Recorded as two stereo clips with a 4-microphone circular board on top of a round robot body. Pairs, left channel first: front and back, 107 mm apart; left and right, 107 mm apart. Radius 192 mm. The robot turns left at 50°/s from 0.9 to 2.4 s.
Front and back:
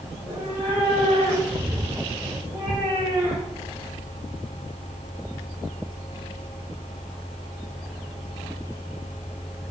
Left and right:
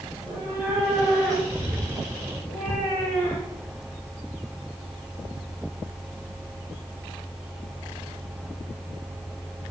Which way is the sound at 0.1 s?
160° right.